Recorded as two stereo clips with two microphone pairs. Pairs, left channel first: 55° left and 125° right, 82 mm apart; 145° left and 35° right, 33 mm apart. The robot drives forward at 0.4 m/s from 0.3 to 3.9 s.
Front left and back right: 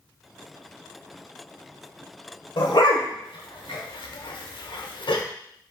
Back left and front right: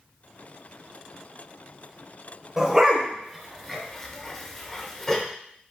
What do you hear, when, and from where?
2.6 s a dog barking: 35° left, 1.0 m; by 5.2 s 65° left, 0.7 m